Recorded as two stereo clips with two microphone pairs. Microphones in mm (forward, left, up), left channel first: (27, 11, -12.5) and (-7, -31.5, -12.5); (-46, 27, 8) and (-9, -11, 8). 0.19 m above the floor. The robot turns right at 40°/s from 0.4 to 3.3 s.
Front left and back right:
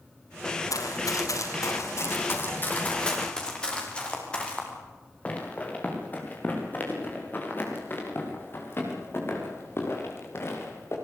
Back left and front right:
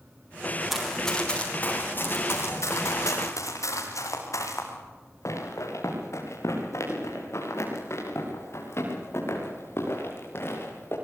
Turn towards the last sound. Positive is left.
turn(degrees=90)